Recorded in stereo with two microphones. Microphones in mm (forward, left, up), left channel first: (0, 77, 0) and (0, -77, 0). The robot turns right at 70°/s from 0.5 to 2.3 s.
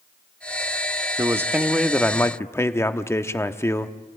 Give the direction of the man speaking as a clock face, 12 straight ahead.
1 o'clock.